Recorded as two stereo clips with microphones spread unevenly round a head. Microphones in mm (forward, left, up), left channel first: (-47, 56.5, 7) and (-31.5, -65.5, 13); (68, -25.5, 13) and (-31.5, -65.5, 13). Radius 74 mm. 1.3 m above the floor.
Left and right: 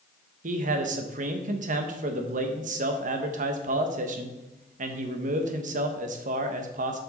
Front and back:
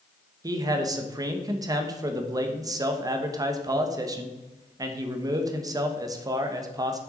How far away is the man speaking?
About 1.1 m.